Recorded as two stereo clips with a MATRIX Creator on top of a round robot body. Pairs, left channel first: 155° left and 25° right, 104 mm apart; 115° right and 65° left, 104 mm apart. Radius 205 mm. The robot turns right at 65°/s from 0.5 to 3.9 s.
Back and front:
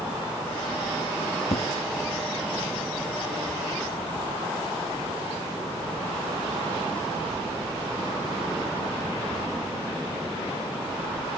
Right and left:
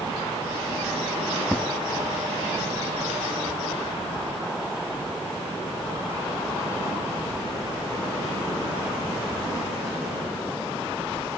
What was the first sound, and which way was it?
An explosion, 165° left.